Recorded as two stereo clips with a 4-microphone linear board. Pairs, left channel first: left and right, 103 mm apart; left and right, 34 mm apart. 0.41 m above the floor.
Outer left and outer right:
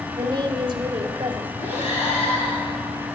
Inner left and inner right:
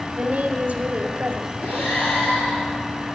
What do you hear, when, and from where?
0.1 s a woman speaking: 50° right (ahead or behind), 1.4 m
1.6 s breathing: 80° left, 4.5 m